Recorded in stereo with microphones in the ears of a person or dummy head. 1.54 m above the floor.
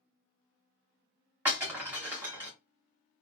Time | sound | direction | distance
1.4 | breaking glass | 15° right (ahead or behind) | 1.3 m